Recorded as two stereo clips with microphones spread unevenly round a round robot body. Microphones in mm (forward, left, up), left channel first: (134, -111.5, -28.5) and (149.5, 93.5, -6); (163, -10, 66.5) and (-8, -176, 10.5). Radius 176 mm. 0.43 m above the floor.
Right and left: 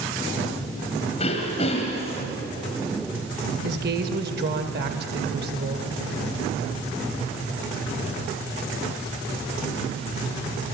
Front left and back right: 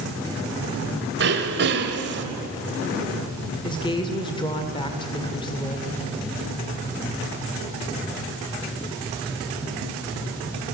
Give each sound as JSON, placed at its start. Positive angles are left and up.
{"t": 1.2, "sound": "throat clearing", "azimuth_deg": -160, "distance_m": 1.8}
{"t": 3.6, "sound": "a woman speaking", "azimuth_deg": 125, "distance_m": 1.7}